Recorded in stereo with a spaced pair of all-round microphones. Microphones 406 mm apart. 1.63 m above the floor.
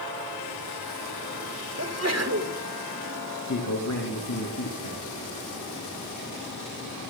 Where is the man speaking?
50° left (ahead or behind), 2.5 m.